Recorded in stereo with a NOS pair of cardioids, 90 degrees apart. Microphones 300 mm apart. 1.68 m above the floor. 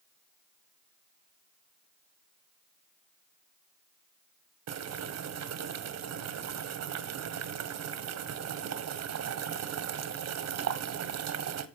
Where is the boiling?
60° right, 1.4 m.